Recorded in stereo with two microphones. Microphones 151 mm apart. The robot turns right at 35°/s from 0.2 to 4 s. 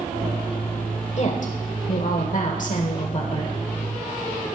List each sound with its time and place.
1.2 s a woman speaking: 60° left, 1.3 m; by 3.5 s 140° left, 1.3 m